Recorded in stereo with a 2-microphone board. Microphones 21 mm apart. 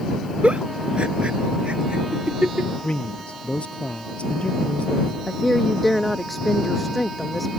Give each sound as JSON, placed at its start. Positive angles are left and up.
{"t": 0.4, "sound": "a giggle", "side_deg": -60}
{"t": 2.8, "sound": "a man speaking", "side_deg": 65}
{"t": 5.3, "sound": "a woman speaking", "side_deg": 0}